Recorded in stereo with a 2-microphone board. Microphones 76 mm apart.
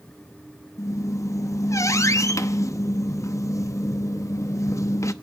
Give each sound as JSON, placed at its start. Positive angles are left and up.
{"t": 0.8, "sound": "a squeak", "side_deg": 45, "distance_m": 0.8}